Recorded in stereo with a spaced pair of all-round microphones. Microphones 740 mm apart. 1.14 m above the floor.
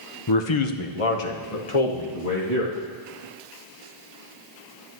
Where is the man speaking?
35° left (ahead or behind), 0.6 m; by 2.7 s 60° left (ahead or behind), 1.9 m.